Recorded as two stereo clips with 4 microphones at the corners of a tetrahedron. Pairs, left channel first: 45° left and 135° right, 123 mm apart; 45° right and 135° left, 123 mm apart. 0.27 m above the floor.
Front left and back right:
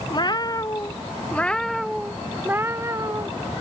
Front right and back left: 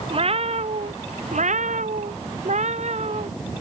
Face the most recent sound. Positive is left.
turn(degrees=165)